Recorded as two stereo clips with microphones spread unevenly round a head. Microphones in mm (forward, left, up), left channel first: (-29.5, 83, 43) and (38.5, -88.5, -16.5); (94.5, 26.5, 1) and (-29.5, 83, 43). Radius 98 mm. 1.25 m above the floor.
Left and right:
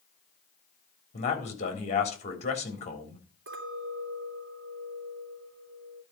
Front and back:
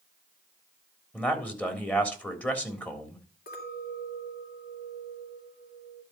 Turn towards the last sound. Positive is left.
turn(degrees=-40)